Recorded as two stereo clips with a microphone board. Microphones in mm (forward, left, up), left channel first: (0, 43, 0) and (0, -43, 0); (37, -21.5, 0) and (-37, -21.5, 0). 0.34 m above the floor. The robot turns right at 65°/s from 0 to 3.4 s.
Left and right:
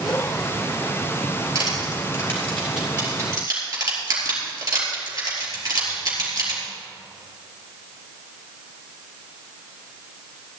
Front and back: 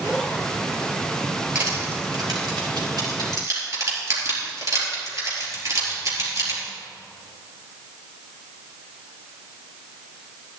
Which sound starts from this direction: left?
Crushing, at 1.6 s.